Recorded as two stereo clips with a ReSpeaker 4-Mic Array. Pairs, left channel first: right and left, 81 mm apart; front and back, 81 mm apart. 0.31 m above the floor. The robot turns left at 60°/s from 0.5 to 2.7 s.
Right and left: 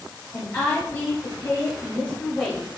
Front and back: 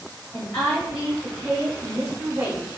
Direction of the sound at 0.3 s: 60° right.